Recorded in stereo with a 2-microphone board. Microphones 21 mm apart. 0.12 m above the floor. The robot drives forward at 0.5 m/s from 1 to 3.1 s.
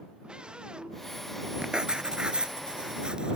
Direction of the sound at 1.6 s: 40° right (ahead or behind).